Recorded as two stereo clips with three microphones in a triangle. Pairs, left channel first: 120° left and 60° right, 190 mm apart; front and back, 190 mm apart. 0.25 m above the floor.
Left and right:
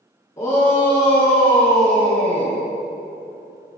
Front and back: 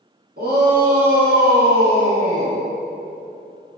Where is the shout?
170° right, 3 m; by 2.6 s 160° left, 2 m.